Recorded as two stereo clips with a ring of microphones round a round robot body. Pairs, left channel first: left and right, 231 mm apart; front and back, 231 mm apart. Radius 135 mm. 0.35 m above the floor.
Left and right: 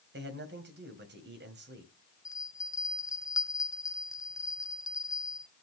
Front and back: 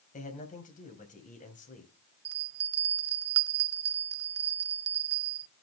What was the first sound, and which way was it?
A man speaking, 55° right.